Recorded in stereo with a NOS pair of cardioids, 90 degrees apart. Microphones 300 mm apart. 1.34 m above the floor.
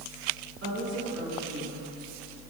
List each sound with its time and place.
0.6 s a woman speaking: 50° right, 2.5 m; by 1.8 s 75° right, 2.5 m